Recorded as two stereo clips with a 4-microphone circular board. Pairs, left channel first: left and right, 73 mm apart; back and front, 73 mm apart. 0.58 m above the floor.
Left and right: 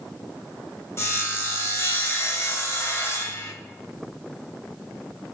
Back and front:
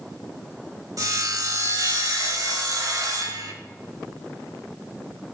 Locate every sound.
1.0 s sawing: 40° left, 1.4 m